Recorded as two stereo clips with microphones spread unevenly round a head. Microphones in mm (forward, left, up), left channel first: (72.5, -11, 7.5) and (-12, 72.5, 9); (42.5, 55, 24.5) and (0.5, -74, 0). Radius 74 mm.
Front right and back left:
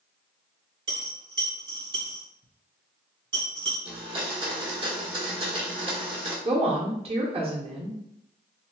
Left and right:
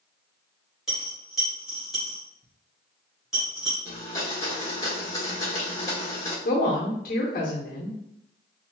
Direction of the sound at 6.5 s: 100° left.